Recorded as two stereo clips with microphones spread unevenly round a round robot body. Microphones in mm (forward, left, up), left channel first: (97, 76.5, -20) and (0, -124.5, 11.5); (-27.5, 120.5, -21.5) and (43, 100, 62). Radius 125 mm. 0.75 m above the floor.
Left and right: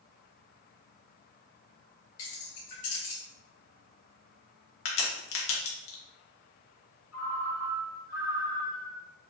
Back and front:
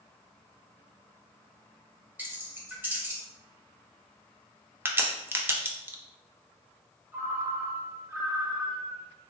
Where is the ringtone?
50° left, 1.0 m.